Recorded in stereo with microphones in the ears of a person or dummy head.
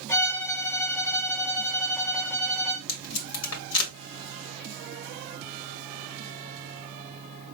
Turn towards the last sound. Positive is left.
turn(degrees=85)